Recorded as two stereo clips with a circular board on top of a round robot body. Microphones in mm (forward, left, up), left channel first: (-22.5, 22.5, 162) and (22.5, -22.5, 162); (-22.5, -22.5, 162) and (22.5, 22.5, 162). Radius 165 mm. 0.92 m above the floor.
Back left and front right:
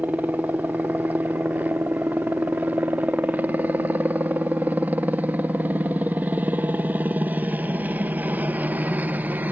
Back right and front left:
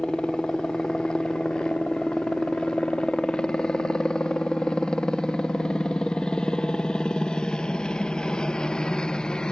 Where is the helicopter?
70° right.